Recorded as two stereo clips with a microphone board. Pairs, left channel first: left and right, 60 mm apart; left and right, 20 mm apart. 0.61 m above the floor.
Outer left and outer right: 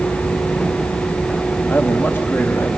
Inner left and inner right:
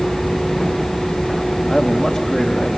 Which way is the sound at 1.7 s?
40° left (ahead or behind).